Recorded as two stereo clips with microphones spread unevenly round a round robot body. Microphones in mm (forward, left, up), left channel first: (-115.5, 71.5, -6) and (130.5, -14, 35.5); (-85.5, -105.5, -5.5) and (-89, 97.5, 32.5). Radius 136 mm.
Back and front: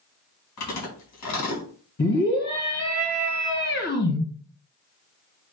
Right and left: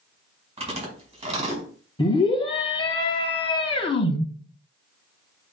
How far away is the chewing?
About 4.5 m.